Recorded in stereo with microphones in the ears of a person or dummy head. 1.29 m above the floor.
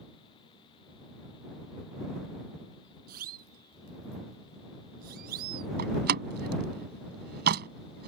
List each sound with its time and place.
3.1 s a siren: 50° right (ahead or behind)
5.8 s a door slam: 55° right (ahead or behind)